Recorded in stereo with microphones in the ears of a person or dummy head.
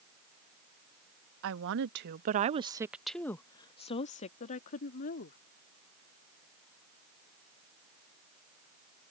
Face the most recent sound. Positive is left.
turn(degrees=55)  # may be behind; listen again after turning